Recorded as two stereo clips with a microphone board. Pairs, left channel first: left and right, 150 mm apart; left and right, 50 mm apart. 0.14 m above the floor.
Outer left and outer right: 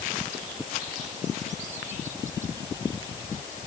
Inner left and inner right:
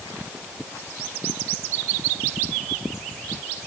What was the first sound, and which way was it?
Only background noise.